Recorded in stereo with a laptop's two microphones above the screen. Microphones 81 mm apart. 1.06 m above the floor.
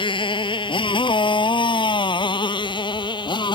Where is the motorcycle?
85° left; by 3.5 s 65° left (ahead or behind).